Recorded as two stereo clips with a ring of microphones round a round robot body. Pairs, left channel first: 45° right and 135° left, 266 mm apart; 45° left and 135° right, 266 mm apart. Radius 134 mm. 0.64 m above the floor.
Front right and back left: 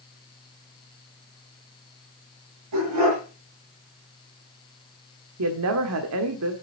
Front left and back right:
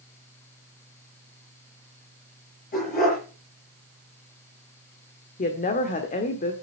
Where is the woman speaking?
105° left, 1.5 m.